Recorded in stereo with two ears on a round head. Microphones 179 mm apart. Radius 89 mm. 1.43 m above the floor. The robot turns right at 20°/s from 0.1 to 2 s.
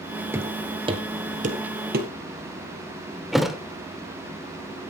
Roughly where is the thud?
Centre.